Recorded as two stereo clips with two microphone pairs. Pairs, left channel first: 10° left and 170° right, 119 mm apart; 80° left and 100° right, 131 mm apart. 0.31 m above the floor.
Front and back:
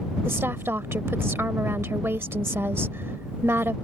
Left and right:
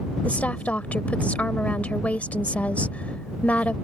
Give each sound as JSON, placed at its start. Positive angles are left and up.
{"t": 0.2, "sound": "a woman speaking", "azimuth_deg": 145}